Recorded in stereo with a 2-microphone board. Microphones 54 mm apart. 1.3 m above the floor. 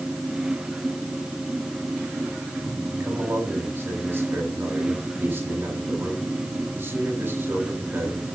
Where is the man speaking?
40° right (ahead or behind), 8 m.